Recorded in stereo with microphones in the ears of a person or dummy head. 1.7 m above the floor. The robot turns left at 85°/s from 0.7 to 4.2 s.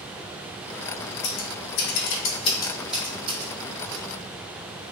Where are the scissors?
35° left (ahead or behind), 0.9 m; by 4.0 s 60° right (ahead or behind), 0.9 m.